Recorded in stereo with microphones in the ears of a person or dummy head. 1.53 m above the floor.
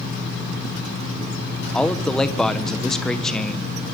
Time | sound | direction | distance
1.7 | a man speaking | centre (ahead or behind) | 1.2 m